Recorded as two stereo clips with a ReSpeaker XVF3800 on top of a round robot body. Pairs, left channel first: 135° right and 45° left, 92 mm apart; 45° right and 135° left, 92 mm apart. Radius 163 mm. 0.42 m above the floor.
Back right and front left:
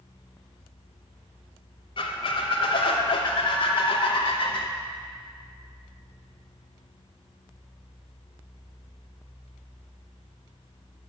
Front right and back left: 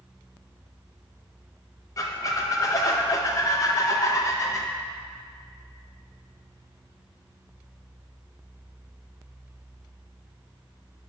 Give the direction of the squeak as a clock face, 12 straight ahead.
3 o'clock.